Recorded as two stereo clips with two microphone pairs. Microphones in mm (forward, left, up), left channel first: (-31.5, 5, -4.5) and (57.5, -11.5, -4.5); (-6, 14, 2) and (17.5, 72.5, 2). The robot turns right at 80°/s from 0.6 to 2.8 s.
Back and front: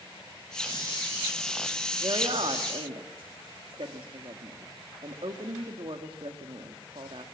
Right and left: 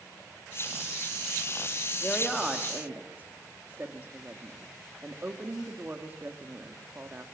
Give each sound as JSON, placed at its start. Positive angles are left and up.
{"t": 2.0, "sound": "a woman speaking", "azimuth_deg": -55, "distance_m": 2.0}